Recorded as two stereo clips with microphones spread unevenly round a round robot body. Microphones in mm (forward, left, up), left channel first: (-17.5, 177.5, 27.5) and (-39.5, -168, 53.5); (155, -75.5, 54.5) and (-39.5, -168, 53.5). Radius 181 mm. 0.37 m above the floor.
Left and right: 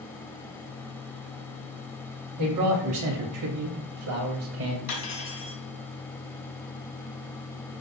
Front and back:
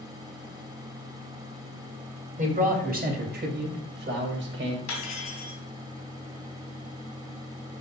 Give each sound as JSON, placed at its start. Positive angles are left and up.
{"t": 2.4, "sound": "a man speaking", "azimuth_deg": -105, "distance_m": 2.5}
{"t": 4.9, "sound": "cutlery clinking", "azimuth_deg": 30, "distance_m": 2.5}